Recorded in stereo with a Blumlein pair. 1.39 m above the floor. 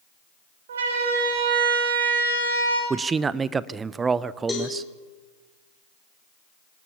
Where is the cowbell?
15° left, 6 m.